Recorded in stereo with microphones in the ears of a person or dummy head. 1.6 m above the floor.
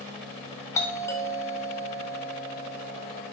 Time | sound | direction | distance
0.8 | a doorbell | 10° left (ahead or behind) | 0.7 m